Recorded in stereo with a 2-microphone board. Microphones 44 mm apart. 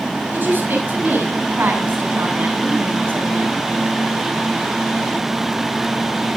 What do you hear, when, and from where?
0.3 s a woman speaking: 55° right (ahead or behind), 7.5 m